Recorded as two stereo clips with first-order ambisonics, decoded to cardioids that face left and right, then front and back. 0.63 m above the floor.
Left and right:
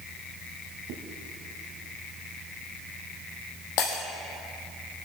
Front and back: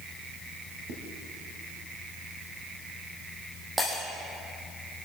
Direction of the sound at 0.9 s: 135° right.